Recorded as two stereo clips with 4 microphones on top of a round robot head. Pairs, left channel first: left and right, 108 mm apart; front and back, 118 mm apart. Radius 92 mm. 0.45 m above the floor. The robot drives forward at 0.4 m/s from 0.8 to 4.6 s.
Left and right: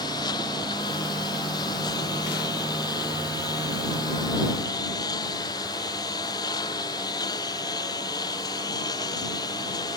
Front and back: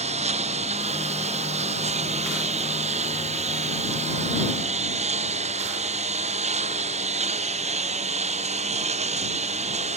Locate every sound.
0.0 s a lawn mower: 155° left